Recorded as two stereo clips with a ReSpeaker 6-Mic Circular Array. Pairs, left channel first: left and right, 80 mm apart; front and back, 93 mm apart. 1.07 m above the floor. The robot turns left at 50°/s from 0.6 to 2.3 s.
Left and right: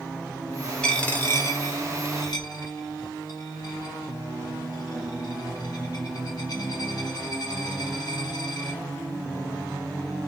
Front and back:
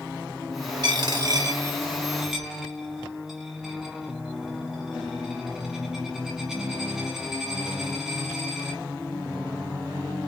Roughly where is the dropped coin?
Behind.